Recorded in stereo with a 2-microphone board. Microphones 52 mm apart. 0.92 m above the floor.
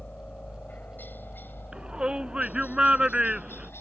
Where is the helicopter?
30° left (ahead or behind); by 3.8 s 50° left (ahead or behind).